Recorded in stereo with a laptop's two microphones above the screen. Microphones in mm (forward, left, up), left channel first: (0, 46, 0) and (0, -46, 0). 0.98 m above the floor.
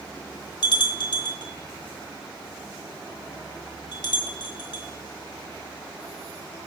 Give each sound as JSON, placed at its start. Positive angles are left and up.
{"t": 0.6, "sound": "a bell", "side_deg": 55, "distance_m": 1.1}